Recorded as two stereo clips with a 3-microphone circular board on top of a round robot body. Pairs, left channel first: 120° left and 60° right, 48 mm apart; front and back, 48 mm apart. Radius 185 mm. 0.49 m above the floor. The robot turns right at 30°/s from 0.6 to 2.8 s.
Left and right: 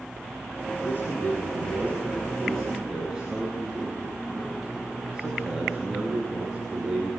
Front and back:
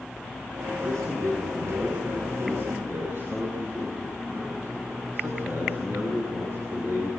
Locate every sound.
0.8 s a man speaking: 160° left, 9 m; by 7.1 s 140° right, 9 m